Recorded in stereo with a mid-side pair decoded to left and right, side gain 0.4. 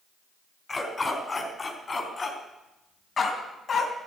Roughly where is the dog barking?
Ahead left.